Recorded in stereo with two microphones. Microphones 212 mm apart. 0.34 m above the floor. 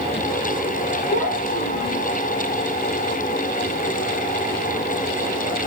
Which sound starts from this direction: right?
A child speaking, at 1.1 s.